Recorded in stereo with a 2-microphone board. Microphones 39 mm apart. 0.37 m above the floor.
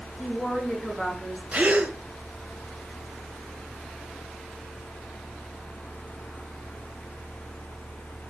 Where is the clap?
No clap in this recording.